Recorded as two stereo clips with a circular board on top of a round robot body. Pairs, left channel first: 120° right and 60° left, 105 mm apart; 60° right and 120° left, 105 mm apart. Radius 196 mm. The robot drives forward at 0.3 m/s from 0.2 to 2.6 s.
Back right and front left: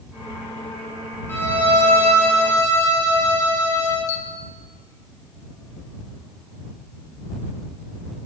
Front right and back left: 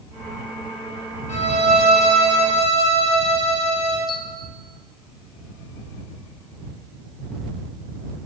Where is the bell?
105° right, 1.1 m.